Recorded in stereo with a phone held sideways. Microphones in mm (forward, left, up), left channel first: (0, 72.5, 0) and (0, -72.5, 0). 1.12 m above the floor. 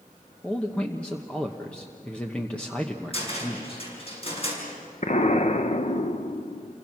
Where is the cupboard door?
40° left (ahead or behind), 6 m.